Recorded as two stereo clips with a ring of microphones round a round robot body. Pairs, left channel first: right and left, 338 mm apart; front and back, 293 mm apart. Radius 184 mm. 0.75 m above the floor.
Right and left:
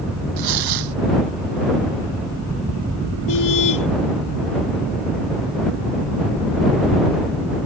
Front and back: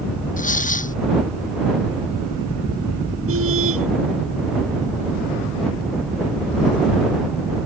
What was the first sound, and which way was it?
Tearing paper, 65° left.